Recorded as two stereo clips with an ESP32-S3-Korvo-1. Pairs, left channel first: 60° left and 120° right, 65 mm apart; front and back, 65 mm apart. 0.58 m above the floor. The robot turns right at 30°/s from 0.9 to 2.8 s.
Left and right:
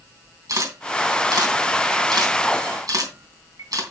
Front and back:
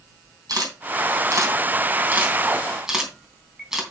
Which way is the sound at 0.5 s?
155° right.